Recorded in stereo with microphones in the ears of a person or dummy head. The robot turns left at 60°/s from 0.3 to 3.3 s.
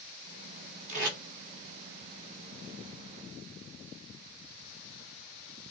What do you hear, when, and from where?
0.9 s tape being pulled: 45° right (ahead or behind), 1.8 m; by 1.2 s 60° right (ahead or behind), 1.8 m